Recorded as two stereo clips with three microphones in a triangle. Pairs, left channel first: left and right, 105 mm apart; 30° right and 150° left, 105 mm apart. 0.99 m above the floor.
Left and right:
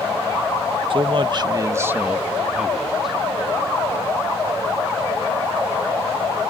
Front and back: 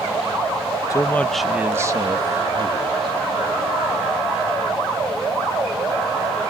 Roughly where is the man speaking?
Right.